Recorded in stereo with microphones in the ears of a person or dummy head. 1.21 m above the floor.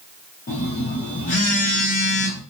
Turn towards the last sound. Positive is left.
turn(degrees=35)  # may be behind; listen again after turning